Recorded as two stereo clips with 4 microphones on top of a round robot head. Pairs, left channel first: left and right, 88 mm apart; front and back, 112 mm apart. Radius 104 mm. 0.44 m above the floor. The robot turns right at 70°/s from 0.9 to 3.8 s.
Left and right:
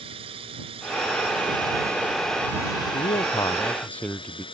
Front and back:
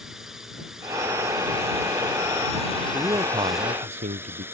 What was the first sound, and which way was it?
A drone, 95° right.